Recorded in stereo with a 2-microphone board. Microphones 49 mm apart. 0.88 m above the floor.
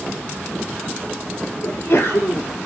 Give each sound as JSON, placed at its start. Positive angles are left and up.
{"t": 1.6, "sound": "a sneeze", "side_deg": 70, "distance_m": 2.5}